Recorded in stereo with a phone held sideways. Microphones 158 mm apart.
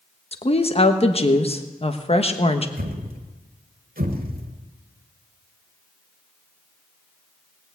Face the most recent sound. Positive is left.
turn(degrees=-65)  # may be behind; listen again after turning